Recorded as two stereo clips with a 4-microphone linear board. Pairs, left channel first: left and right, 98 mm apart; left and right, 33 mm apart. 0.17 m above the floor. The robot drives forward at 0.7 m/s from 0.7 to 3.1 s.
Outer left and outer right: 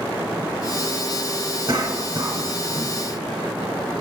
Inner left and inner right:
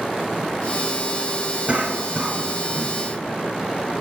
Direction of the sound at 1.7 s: 35° right (ahead or behind).